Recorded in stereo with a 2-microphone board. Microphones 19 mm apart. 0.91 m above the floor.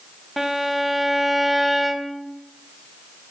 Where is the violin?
10° right (ahead or behind), 1.0 m.